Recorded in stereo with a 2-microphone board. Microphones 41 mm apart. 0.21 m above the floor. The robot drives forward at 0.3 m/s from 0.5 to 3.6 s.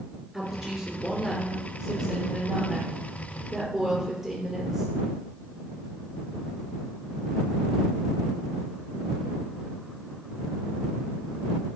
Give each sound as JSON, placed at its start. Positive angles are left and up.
{"t": 0.3, "sound": "a woman speaking", "side_deg": -15, "distance_m": 2.5}